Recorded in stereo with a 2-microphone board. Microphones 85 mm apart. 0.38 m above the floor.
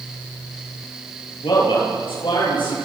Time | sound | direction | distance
1.4 | a man speaking | 80° left | 9 m